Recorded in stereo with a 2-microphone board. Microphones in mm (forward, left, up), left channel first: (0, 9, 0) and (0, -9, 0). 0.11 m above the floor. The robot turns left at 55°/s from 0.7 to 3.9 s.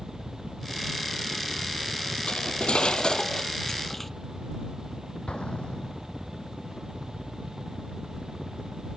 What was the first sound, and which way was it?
A helicopter, straight behind.